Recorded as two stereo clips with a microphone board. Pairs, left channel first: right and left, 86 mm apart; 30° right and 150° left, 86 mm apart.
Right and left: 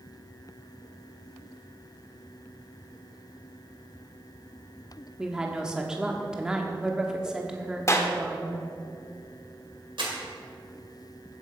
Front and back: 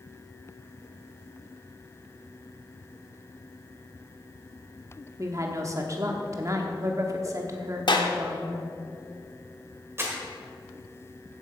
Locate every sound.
5.2 s a woman speaking: 170° left, 1.0 m
7.9 s a clap: 40° right, 1.1 m
10.0 s crumpling: 90° left, 2.5 m